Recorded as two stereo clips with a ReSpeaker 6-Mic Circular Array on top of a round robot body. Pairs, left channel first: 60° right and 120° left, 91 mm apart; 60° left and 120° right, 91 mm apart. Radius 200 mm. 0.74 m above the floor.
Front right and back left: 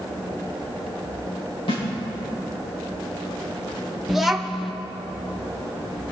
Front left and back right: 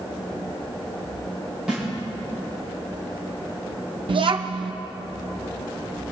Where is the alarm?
No alarm in this recording.